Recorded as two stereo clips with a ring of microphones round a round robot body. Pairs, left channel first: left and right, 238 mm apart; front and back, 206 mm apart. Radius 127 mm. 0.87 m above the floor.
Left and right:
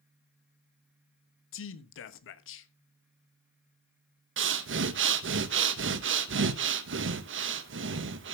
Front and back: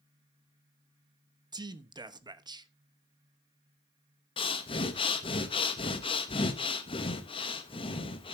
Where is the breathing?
65° right, 0.9 m.